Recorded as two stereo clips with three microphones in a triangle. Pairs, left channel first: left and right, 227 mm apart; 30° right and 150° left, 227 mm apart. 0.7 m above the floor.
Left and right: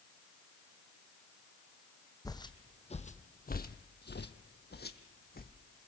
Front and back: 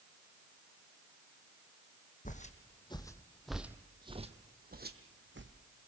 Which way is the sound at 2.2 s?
15° left.